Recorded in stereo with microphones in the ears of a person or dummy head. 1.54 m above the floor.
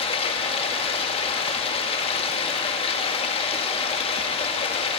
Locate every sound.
0.0 s running water: 25° left (ahead or behind), 2.5 m